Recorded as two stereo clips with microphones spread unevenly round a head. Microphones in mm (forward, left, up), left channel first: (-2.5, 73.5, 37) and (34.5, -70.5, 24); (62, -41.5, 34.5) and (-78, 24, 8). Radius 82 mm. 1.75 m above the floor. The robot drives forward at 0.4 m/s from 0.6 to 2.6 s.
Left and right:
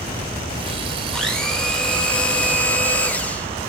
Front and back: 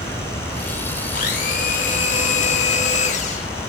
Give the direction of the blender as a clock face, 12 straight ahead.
11 o'clock.